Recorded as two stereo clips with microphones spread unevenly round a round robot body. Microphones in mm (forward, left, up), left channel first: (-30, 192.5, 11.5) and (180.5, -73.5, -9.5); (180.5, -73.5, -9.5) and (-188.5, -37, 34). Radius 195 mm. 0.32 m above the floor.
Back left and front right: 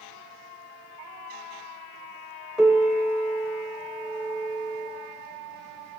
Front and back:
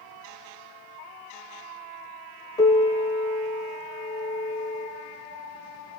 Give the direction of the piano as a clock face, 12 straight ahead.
11 o'clock.